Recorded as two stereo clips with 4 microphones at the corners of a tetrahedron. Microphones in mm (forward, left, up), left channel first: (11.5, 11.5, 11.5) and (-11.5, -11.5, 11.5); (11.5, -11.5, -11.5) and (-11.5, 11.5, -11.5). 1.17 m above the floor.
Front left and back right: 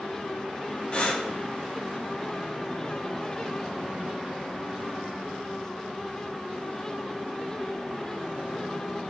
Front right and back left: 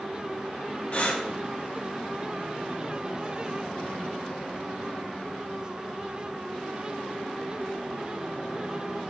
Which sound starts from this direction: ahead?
Breathing, at 0.9 s.